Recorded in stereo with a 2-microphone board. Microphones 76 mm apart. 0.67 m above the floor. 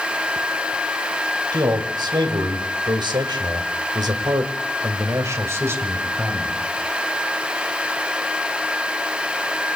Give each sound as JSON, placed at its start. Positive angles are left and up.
{"t": 1.5, "sound": "a man speaking", "side_deg": -65, "distance_m": 4.0}